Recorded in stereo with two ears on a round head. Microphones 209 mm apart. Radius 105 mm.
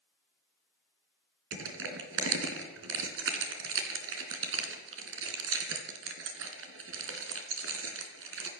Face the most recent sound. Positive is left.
turn(degrees=-60)  # may be behind; listen again after turning